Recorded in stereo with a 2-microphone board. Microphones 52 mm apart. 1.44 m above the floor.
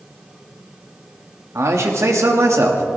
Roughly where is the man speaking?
Right.